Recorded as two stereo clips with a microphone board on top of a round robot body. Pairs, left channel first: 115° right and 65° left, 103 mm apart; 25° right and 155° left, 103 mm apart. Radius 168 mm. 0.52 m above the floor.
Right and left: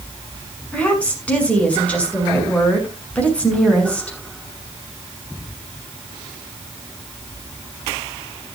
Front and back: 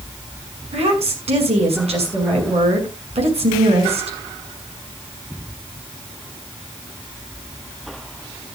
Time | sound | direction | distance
0.7 | a woman speaking | 170° left | 6.5 m